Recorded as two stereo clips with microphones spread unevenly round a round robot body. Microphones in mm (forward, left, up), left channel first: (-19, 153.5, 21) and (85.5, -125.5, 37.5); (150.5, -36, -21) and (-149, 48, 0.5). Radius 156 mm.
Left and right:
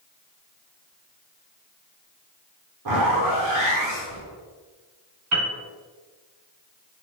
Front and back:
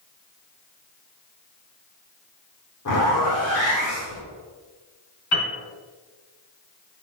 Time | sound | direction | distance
2.9 | a zipper | 55° right | 2.5 m
5.3 | a piano | 30° right | 2 m